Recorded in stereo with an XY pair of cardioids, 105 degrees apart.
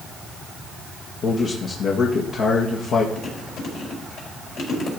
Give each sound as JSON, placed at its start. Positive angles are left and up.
{"t": 1.2, "sound": "a man speaking", "azimuth_deg": 60, "distance_m": 1.8}
{"t": 3.1, "sound": "chewing", "azimuth_deg": 65, "distance_m": 5.0}